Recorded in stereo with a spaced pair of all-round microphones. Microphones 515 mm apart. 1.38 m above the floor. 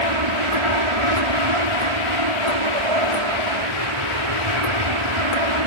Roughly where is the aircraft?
Right.